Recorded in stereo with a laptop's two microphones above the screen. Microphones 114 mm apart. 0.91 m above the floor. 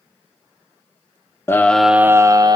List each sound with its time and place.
1.5 s a scream: 20° left (ahead or behind), 0.6 m; by 2.6 s 35° right (ahead or behind), 0.8 m